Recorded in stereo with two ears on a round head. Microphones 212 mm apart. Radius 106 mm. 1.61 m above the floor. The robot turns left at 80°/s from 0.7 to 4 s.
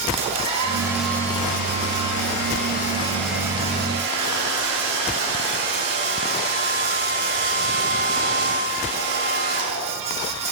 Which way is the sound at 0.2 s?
155° right.